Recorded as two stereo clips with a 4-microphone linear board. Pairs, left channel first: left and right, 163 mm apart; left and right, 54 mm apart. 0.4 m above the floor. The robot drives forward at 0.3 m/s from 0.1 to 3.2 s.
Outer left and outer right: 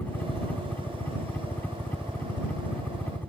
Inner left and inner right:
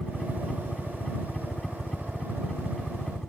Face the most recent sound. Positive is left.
turn(degrees=10)  # may be behind; listen again after turning